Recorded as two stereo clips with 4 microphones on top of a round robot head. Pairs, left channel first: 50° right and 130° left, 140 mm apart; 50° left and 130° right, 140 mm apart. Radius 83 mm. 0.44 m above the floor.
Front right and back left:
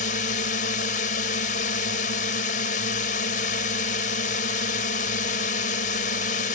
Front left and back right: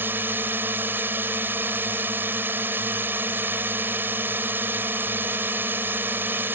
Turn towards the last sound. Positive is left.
turn(degrees=-55)